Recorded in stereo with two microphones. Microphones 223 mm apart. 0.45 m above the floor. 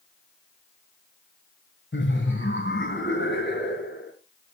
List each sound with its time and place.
1.9 s laughter: 60° left (ahead or behind), 1.9 m